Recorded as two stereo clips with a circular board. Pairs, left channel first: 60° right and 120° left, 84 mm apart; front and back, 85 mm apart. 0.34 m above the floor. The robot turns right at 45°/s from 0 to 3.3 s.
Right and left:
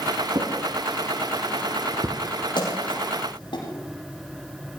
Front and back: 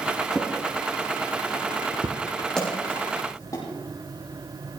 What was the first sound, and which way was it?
A drawer, 90° left.